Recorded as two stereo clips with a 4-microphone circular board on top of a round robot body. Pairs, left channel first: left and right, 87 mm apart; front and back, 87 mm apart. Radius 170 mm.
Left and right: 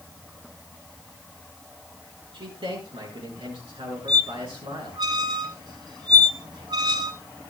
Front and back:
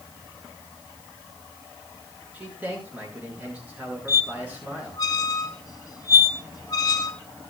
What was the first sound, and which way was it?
A man speaking, 105° right.